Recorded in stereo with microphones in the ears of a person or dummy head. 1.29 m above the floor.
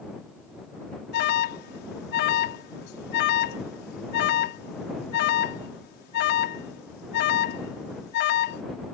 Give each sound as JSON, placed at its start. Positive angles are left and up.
{"t": 1.1, "sound": "an alarm", "side_deg": 55}